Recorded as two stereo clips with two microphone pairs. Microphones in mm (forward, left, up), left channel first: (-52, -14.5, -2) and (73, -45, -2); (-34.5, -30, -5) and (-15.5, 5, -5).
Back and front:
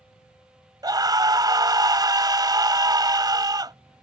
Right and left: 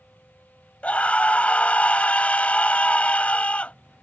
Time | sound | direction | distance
0.8 | a scream | 70° right | ?